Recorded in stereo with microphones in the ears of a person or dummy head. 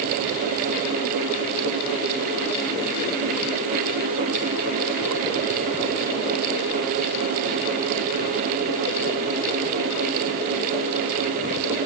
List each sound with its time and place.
Only background noise.